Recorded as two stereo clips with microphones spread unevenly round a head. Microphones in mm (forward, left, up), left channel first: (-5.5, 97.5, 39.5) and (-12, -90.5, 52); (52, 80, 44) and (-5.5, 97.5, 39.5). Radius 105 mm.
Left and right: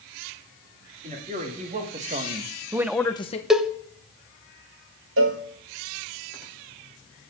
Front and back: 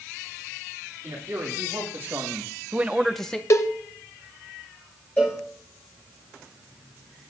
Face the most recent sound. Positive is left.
turn(degrees=-95)